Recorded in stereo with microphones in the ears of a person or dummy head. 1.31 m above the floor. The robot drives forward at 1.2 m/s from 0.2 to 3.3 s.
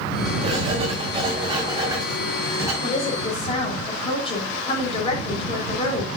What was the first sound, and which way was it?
Writing, 35° right (ahead or behind).